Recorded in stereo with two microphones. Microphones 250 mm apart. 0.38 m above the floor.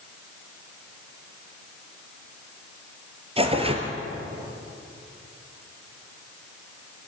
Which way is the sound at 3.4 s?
25° right (ahead or behind).